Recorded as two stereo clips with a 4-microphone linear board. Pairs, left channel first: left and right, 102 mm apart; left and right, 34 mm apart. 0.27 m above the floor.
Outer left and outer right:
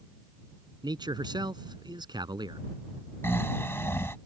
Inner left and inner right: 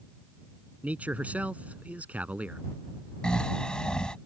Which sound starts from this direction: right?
A man speaking, at 0.8 s.